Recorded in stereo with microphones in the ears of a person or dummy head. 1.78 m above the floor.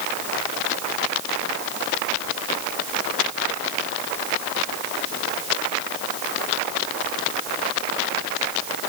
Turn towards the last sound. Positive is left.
No sound to turn to.